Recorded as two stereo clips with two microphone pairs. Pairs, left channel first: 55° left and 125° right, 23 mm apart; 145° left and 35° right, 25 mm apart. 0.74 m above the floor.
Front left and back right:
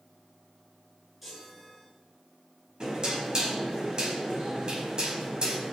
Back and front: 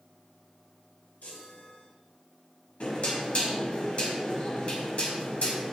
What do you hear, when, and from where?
1.2 s a chime: 155° left, 7 m
2.8 s knocking: 175° right, 5 m